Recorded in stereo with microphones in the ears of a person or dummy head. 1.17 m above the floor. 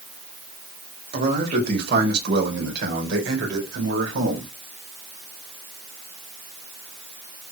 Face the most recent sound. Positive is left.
turn(degrees=-70)  # may be behind; listen again after turning